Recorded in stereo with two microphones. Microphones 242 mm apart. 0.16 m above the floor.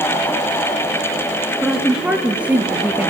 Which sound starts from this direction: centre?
A woman speaking, at 1.6 s.